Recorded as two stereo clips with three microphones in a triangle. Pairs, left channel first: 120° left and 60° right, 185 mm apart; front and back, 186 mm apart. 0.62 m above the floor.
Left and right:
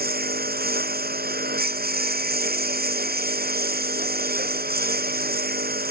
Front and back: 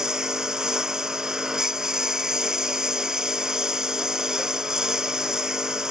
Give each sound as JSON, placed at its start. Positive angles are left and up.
{"t": 0.0, "sound": "a lawn mower", "azimuth_deg": -95}